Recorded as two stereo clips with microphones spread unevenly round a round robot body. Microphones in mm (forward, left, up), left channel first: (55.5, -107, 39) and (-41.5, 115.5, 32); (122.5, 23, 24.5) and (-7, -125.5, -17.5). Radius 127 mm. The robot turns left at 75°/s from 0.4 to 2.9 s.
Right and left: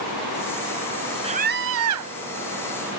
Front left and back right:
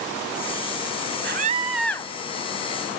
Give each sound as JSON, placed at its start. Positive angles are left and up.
{"t": 1.2, "sound": "a scream", "azimuth_deg": 180}